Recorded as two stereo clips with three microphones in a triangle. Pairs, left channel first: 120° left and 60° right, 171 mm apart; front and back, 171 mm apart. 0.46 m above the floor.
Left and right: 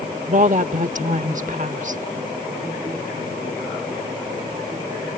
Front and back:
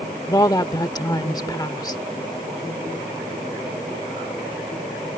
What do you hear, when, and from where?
0.3 s a woman speaking: 60° right